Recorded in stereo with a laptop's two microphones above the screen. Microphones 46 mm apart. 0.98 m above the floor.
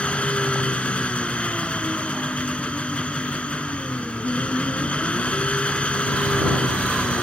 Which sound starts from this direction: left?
An engine running, at 0.0 s.